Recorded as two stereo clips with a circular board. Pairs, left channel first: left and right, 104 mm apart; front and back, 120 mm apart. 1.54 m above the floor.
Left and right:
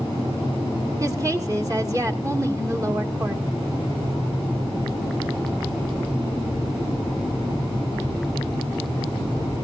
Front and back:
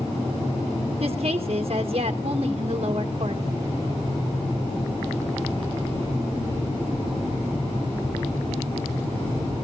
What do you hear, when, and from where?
1.0 s a woman speaking: 145° right, 1.8 m